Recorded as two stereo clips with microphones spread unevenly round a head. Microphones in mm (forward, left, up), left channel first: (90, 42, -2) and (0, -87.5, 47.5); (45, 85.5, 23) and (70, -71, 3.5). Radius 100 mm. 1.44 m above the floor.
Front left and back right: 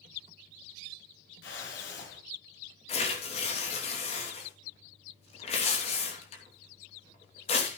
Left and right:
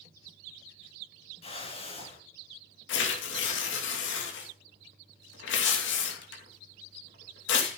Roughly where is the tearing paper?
Left.